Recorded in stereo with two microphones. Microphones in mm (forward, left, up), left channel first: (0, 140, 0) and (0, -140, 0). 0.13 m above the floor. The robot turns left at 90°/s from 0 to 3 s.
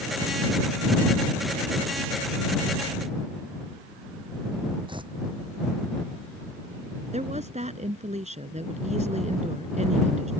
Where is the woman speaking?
25° right (ahead or behind).